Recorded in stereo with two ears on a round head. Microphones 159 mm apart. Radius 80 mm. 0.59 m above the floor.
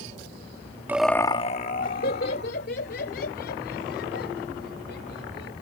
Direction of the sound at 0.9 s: 10° right (ahead or behind).